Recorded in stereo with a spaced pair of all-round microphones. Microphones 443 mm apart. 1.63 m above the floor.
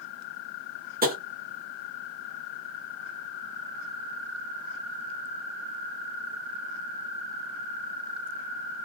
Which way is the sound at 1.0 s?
20° right (ahead or behind).